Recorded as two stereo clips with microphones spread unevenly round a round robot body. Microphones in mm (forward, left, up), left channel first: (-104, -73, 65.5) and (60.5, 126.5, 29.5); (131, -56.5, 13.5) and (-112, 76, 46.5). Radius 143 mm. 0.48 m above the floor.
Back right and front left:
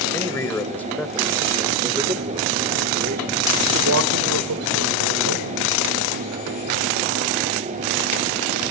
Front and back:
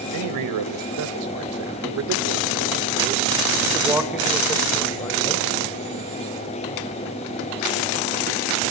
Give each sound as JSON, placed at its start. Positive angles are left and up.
{"t": 0.1, "sound": "a man speaking", "azimuth_deg": 150, "distance_m": 2.5}